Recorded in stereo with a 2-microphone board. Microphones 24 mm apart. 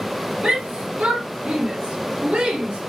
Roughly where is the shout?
Right.